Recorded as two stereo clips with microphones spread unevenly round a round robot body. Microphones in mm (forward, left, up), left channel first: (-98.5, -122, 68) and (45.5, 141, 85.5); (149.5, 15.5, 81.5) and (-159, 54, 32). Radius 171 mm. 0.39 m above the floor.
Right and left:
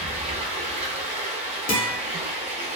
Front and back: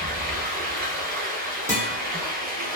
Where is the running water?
125° left, 0.8 m.